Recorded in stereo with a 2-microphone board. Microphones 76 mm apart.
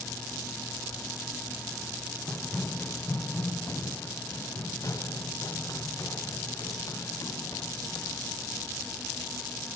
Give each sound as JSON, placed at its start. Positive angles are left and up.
{"t": 2.3, "sound": "running footsteps", "side_deg": 5}